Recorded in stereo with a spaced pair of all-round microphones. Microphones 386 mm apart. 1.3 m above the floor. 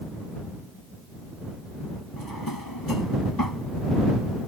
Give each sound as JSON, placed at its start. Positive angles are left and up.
{"t": 2.2, "sound": "a drawer", "side_deg": 65}